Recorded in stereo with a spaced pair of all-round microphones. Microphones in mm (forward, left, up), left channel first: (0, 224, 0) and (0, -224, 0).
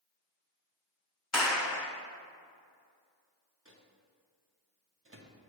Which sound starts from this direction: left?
A clap, at 1.3 s.